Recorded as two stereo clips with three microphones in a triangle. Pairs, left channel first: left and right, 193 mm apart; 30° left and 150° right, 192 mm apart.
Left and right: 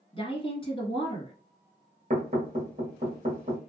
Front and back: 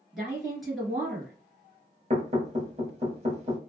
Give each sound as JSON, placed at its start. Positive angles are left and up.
{"t": 0.1, "sound": "a woman speaking", "azimuth_deg": 120, "distance_m": 1.6}
{"t": 2.1, "sound": "knocking", "azimuth_deg": -115, "distance_m": 1.1}